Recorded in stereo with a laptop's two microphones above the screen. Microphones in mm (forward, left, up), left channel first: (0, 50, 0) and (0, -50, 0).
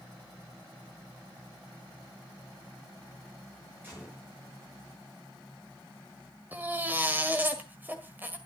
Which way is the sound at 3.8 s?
20° right (ahead or behind).